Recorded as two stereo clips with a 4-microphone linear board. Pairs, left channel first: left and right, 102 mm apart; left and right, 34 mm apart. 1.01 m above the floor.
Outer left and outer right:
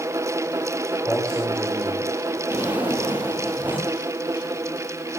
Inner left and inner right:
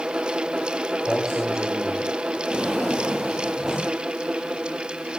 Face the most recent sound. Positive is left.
turn(degrees=-15)  # may be behind; listen again after turning